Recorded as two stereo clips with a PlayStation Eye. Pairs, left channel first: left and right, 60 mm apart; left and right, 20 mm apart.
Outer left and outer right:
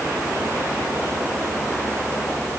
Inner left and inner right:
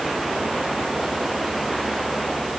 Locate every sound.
Only background noise.